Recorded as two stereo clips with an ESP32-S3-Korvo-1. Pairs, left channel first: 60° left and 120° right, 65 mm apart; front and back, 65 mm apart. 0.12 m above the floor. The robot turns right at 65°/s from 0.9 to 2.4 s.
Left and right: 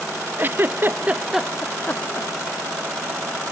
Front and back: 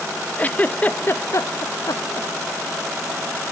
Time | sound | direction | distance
0.4 | a giggle | 65° right | ?